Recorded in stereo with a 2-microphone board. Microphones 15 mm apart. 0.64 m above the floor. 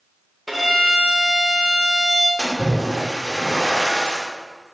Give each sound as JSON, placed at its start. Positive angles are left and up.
{"t": 0.5, "sound": "a violin", "side_deg": -5, "distance_m": 2.0}
{"t": 2.4, "sound": "a splash", "side_deg": 65, "distance_m": 1.7}